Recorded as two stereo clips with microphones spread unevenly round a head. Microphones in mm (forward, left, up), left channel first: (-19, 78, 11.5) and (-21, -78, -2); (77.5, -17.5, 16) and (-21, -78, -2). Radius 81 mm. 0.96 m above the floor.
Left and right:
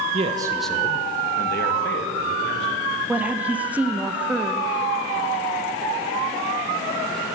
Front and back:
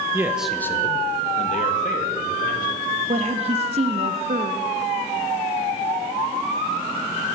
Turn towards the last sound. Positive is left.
turn(degrees=-170)